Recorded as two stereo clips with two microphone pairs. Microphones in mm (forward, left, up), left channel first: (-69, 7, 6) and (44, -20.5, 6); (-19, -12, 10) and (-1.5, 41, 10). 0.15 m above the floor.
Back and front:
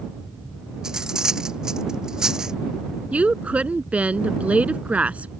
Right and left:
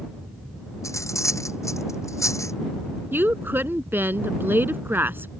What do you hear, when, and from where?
0.8 s cutlery clinking: 100° right
3.1 s a woman speaking: 60° left